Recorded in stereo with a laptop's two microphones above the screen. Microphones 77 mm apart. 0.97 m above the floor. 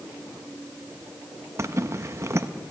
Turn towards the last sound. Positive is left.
turn(degrees=-40)  # may be behind; listen again after turning